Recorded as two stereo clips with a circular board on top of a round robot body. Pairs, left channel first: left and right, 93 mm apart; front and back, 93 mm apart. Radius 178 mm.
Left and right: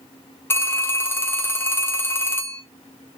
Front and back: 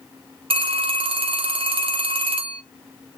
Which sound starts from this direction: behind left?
A phone ringing, at 0.5 s.